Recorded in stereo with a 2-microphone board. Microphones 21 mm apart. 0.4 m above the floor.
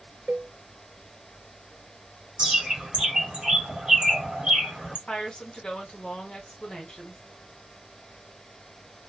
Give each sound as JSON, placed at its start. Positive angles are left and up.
{"t": 0.3, "sound": "a cowbell", "side_deg": -75, "distance_m": 0.6}
{"t": 2.4, "sound": "a bird", "side_deg": -45, "distance_m": 1.6}
{"t": 5.1, "sound": "a woman speaking", "side_deg": 40, "distance_m": 1.3}